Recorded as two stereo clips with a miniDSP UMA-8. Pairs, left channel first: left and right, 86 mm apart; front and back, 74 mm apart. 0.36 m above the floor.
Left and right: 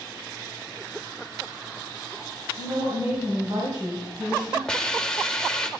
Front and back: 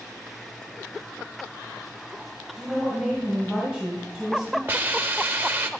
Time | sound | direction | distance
2.6 | a woman speaking | 100° right | 1.9 m
4.7 | a hiss | 160° left | 0.7 m